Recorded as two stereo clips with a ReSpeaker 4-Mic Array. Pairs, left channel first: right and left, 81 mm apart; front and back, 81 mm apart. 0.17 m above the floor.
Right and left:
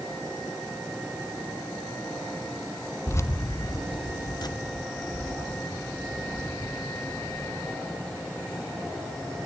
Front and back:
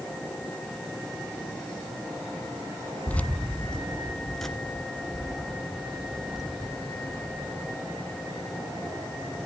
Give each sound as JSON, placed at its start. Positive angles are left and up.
{"t": 3.1, "sound": "keys jangling", "azimuth_deg": -60, "distance_m": 0.8}